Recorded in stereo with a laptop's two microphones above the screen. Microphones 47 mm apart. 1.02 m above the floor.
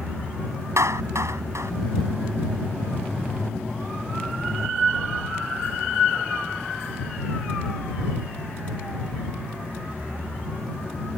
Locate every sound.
0.8 s a clap: 90° right